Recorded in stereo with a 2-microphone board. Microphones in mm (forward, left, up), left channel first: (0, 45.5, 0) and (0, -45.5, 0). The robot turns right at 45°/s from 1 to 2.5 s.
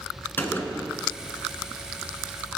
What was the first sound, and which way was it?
A gunshot, 25° left (ahead or behind).